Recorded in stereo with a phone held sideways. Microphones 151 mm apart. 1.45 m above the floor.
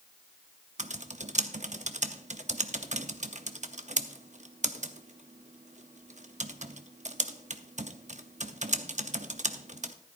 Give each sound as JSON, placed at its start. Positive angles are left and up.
{"t": 0.8, "sound": "typing on a keyboard", "side_deg": -50, "distance_m": 0.7}